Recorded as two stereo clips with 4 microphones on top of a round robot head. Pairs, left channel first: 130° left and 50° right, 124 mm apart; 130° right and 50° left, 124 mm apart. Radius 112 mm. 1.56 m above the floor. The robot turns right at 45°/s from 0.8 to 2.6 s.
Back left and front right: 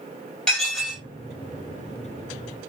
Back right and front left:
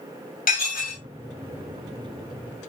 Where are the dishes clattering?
145° right, 1.8 m; by 1.0 s 135° right, 1.8 m.